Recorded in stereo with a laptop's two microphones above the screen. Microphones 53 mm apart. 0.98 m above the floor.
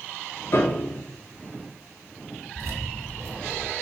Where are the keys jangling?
65° right (ahead or behind), 1.7 m.